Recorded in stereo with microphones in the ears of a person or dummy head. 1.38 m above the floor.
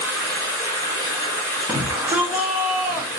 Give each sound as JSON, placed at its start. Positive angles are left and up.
{"t": 0.0, "sound": "running water", "side_deg": 15, "distance_m": 1.2}
{"t": 1.7, "sound": "a shout", "side_deg": -5, "distance_m": 0.8}